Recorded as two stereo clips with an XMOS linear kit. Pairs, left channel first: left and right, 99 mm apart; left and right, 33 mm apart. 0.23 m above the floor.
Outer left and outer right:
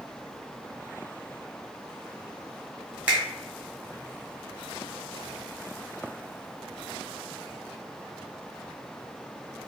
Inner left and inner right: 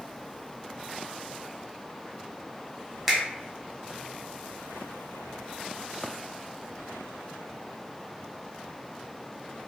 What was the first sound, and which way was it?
A finger snap, 10° right (ahead or behind).